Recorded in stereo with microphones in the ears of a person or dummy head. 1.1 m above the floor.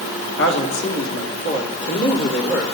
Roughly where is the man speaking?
Left.